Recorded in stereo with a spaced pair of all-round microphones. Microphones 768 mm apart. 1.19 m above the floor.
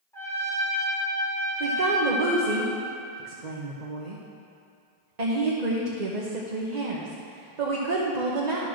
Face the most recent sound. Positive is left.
turn(degrees=-60)  # may be behind; listen again after turning